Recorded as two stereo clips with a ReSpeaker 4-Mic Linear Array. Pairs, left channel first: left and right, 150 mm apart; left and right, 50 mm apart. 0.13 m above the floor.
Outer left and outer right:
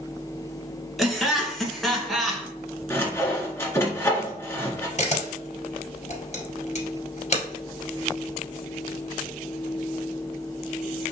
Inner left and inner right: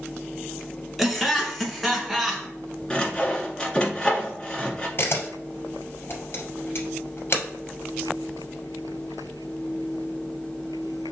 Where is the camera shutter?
50° left (ahead or behind), 1.8 m.